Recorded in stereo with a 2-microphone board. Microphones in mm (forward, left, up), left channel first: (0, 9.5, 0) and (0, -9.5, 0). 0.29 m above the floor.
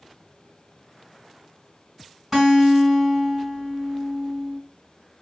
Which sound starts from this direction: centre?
A guitar, at 2.3 s.